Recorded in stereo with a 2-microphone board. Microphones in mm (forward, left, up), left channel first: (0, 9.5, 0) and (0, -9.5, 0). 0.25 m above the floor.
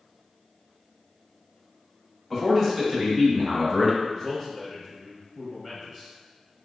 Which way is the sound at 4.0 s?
5° left (ahead or behind).